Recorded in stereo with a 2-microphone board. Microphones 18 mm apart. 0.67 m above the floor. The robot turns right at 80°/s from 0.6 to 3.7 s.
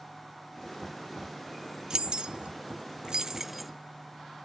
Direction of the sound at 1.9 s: 35° right (ahead or behind).